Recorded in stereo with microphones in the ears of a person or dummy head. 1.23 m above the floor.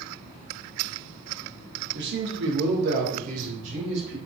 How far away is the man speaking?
About 0.6 m.